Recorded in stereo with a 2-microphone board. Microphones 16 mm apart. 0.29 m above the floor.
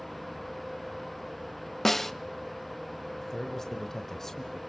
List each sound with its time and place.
1.9 s a snare drum: 20° left (ahead or behind), 0.7 m
3.2 s a man speaking: 30° left (ahead or behind), 1.4 m